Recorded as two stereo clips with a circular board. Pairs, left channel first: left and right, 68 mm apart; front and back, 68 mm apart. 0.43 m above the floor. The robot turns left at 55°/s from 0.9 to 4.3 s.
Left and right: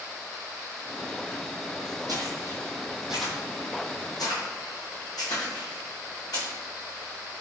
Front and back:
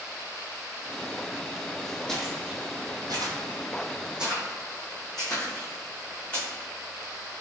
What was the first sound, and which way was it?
Footsteps, 80° right.